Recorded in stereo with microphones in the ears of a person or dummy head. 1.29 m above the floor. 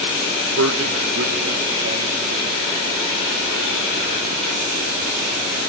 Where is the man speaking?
80° right, 1.4 m; by 5.6 s 60° right (ahead or behind), 8 m.